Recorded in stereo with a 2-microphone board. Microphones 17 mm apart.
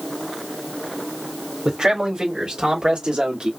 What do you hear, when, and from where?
1.6 s a man speaking: 55° right (ahead or behind), 3 m; by 3.5 s 75° right (ahead or behind), 2 m